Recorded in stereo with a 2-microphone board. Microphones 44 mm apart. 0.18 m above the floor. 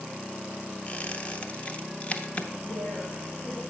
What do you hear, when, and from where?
0.9 s a squeak: 35° left (ahead or behind), 0.7 m
2.6 s a woman speaking: 45° left (ahead or behind), 3.5 m